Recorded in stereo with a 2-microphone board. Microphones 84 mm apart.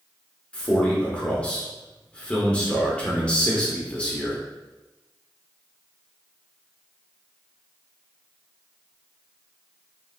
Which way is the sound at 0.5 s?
15° left (ahead or behind).